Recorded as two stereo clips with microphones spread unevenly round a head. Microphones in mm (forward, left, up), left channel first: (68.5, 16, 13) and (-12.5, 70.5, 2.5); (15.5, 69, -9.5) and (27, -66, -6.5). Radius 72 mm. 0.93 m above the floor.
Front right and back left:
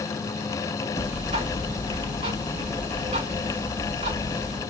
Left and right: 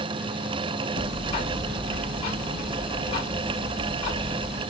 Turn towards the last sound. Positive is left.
turn(degrees=155)